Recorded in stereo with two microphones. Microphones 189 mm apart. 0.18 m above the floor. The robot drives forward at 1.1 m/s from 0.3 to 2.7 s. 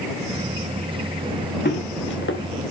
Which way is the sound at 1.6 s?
60° left (ahead or behind).